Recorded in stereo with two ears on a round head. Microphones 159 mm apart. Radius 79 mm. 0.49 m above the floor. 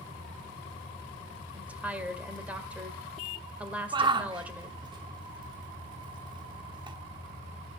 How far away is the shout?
About 1.2 m.